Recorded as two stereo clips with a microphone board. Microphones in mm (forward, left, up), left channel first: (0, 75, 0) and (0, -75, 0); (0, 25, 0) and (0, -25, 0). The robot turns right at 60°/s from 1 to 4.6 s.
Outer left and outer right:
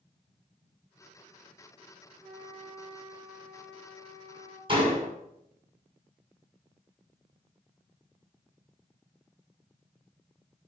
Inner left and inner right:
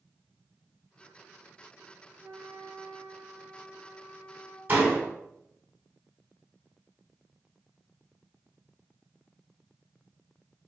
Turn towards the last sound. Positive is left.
turn(degrees=-35)  # may be behind; listen again after turning